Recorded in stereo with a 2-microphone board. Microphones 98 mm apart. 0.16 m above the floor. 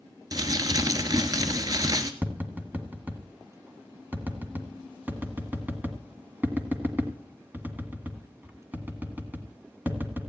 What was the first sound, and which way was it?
Crumpling, 40° right (ahead or behind).